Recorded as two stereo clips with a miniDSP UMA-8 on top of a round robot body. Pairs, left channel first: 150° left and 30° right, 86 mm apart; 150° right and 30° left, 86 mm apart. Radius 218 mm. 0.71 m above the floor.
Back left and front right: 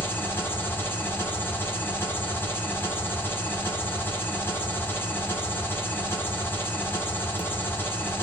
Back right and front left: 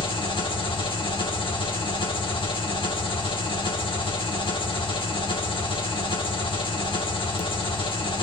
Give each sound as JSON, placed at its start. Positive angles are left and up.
{"t": 0.0, "sound": "an engine running", "azimuth_deg": -145, "distance_m": 2.0}